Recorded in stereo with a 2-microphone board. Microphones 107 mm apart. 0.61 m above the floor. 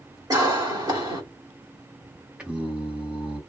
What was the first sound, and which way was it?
A cough, 35° right (ahead or behind).